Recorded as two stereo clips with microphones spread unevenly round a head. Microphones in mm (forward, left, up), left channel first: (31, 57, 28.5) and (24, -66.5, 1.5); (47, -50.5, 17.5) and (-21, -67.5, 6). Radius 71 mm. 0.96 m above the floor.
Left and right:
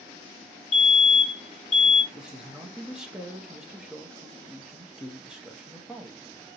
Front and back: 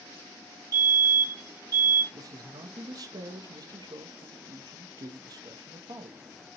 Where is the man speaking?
170° right, 0.9 m.